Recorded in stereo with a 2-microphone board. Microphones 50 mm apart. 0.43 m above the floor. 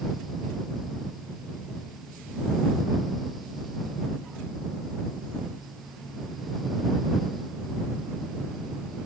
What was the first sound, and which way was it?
Only background noise.